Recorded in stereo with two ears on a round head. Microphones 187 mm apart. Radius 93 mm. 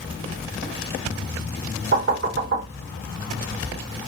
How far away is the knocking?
About 3.5 m.